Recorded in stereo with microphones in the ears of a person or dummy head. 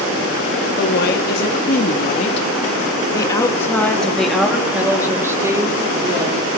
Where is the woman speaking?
65° left (ahead or behind), 3.5 m; by 6.6 s 25° right (ahead or behind), 5 m.